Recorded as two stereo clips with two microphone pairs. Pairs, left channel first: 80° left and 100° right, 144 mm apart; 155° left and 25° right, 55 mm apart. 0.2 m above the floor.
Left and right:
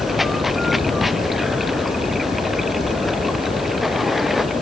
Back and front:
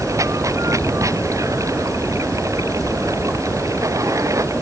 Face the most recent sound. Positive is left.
turn(degrees=-10)